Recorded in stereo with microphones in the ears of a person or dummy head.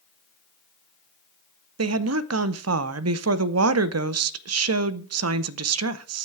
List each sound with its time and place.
1.8 s a woman speaking: 75° right (ahead or behind), 0.7 m